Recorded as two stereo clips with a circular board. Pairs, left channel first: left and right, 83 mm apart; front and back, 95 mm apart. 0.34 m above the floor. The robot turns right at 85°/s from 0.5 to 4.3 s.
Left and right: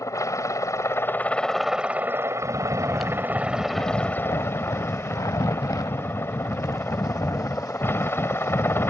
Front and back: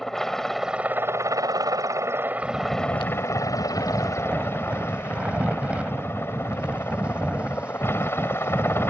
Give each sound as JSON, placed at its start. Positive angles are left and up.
{"t": 0.0, "sound": "a helicopter", "azimuth_deg": 85}
{"t": 2.4, "sound": "snoring", "azimuth_deg": -55}